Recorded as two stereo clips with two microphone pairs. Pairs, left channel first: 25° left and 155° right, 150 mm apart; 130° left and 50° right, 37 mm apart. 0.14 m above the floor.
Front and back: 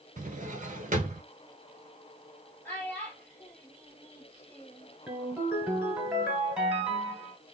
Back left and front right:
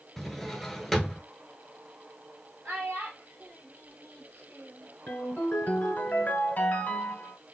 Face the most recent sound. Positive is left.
turn(degrees=125)